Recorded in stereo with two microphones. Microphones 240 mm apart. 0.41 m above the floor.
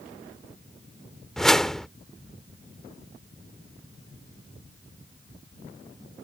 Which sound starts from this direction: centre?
A whoosh, at 1.4 s.